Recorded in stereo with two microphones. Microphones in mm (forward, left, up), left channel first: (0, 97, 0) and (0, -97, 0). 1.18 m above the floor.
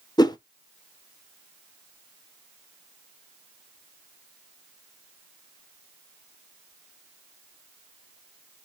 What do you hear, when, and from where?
0.2 s a whoosh: 20° left (ahead or behind), 0.5 m